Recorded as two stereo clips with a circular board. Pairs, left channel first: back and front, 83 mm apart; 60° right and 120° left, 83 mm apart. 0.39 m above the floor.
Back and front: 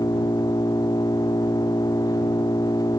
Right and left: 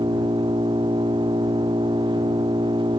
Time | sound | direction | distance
0.0 | an engine running | 140° left | ?